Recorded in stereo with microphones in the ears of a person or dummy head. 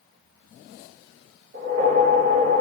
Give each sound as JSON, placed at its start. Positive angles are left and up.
{"t": 1.5, "sound": "a whoosh", "side_deg": -55, "distance_m": 1.5}